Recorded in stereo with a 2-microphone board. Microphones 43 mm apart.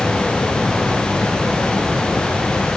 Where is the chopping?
No chopping in this recording.